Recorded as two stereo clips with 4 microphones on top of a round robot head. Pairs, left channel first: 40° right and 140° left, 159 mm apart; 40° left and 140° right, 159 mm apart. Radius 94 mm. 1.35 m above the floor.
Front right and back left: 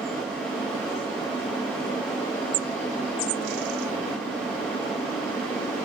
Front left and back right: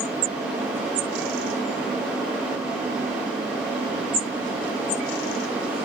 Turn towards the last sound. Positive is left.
No sound to turn to.